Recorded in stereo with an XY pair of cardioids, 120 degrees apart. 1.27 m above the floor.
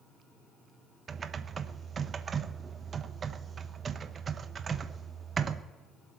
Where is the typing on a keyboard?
35° right, 0.8 m.